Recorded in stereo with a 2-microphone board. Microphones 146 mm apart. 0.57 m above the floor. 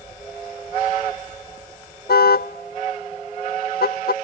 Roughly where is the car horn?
Left.